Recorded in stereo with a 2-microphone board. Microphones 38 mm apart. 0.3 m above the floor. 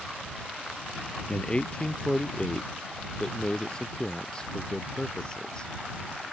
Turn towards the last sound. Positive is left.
turn(degrees=20)  # may be behind; listen again after turning